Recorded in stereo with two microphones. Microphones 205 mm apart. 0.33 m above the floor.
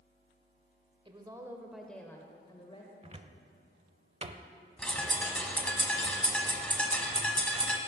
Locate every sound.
1.1 s a woman speaking: 25° right (ahead or behind), 1.1 m; by 2.9 s 30° left (ahead or behind), 1.4 m
3.0 s a cupboard door: 30° right (ahead or behind), 0.7 m
4.8 s a bird: 5° left (ahead or behind), 1.3 m